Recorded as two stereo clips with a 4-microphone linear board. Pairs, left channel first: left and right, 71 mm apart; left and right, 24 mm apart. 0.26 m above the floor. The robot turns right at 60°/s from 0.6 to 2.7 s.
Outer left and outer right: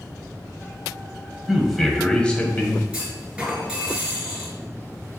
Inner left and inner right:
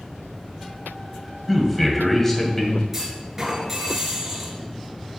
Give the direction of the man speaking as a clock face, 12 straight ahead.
1 o'clock.